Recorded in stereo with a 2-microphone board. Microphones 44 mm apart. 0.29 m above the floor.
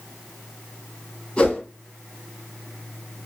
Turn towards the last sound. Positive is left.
turn(degrees=25)  # may be behind; listen again after turning